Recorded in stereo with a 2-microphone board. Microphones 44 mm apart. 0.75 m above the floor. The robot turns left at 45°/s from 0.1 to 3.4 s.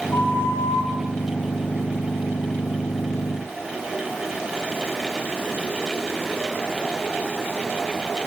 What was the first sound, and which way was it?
A flute, 125° left.